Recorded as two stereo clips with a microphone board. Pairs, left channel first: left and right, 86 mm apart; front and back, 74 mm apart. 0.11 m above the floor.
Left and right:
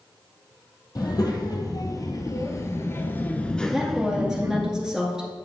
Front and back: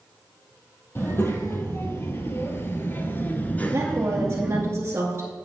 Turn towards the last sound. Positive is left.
turn(degrees=-170)